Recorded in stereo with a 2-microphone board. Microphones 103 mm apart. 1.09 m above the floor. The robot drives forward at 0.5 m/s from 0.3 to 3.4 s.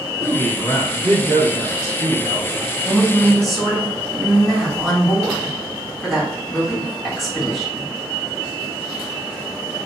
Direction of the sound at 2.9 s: Centre (ahead or behind).